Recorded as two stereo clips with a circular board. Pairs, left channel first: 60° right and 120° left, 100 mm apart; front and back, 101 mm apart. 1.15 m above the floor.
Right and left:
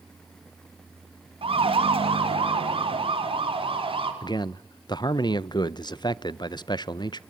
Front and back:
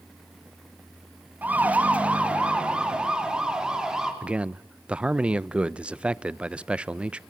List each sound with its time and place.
1.4 s a siren: 105° left, 2 m; by 4.1 s 95° left, 4 m
4.2 s a man speaking: 105° right, 0.5 m